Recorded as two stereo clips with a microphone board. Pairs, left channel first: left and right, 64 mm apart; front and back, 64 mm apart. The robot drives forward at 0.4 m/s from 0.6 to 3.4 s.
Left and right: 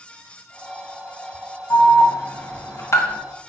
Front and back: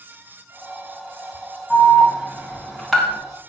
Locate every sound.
1.7 s an alarm: 70° left, 1.8 m; by 3.2 s 95° left, 1.8 m